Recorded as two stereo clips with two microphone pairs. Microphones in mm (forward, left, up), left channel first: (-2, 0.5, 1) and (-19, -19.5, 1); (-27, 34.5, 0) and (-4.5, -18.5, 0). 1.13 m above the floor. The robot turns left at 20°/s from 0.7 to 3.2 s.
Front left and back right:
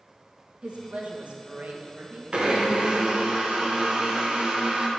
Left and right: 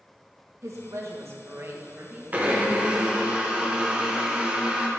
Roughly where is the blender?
Right.